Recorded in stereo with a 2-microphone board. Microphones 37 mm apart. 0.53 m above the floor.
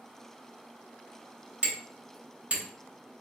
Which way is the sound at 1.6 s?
40° right (ahead or behind).